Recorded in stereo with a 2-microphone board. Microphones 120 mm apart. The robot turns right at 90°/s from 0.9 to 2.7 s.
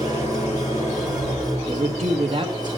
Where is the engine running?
60° left, 6 m; by 2.8 s 135° right, 6 m.